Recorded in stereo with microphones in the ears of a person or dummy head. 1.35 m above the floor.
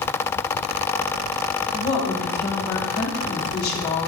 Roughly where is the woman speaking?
Left.